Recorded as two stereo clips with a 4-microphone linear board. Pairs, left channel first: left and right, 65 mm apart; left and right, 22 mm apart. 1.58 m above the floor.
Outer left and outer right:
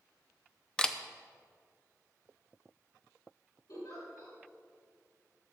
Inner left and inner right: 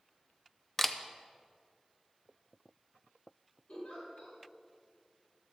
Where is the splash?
I don't hear a splash.